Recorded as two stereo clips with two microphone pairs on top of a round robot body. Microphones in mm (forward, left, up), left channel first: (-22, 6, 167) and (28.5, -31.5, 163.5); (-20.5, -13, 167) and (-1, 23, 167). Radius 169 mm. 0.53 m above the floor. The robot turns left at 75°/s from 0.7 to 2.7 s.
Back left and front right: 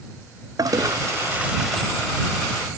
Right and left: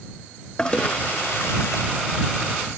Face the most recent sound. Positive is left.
turn(degrees=165)